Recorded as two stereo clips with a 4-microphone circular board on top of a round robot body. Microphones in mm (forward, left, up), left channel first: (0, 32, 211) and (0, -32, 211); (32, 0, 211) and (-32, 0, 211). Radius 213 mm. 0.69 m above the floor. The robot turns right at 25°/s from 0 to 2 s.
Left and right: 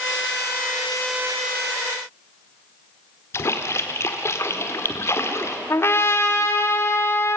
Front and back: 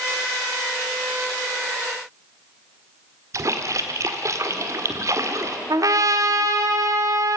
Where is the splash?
140° left, 1.6 m.